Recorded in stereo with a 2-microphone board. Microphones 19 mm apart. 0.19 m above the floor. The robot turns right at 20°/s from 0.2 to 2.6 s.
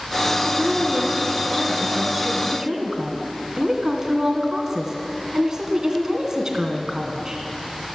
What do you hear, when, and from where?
0.5 s a woman speaking: 90° right, 2 m; by 7.4 s 45° right, 2 m